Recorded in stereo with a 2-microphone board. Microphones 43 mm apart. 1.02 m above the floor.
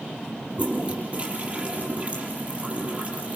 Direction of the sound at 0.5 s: 30° right (ahead or behind).